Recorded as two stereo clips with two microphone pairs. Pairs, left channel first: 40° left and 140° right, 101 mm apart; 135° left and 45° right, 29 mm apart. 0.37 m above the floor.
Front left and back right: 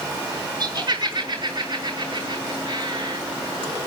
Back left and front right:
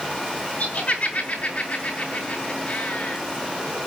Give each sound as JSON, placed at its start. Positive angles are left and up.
{"t": 0.6, "sound": "laughter", "azimuth_deg": 175, "distance_m": 6.0}